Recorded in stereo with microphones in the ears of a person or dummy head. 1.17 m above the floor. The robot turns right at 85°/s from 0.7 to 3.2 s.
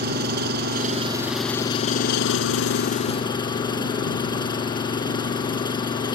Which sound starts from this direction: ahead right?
An engine running, at 0.0 s.